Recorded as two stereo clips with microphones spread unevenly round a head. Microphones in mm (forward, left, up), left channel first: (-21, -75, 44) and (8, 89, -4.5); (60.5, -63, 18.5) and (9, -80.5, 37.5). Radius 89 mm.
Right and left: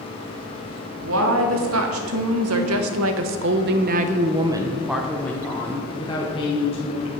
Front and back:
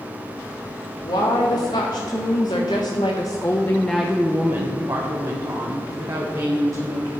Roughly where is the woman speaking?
Ahead left.